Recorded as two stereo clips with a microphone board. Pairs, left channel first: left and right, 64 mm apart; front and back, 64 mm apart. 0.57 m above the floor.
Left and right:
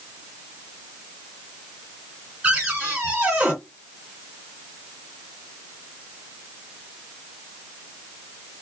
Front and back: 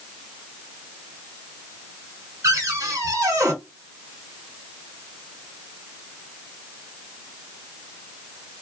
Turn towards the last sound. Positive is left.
turn(degrees=-155)